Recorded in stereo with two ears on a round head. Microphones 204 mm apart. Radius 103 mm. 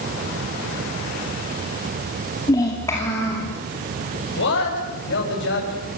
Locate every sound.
2.5 s a child speaking: 15° left (ahead or behind), 2.5 m; by 3.5 s 10° left (ahead or behind), 3.5 m
4.4 s a man speaking: 50° left (ahead or behind), 8.5 m